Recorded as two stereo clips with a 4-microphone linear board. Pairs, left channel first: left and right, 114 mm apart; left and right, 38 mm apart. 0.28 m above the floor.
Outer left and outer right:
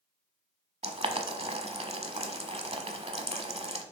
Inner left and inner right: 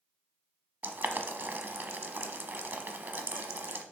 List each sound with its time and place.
0.8 s boiling: 65° right (ahead or behind), 0.8 m